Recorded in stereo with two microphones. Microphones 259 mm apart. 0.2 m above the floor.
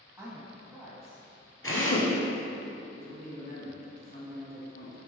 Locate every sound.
0.2 s a woman speaking: 10° right (ahead or behind), 1.1 m
1.6 s a drill: 55° left (ahead or behind), 1.5 m
2.9 s a man speaking: 35° left (ahead or behind), 1.9 m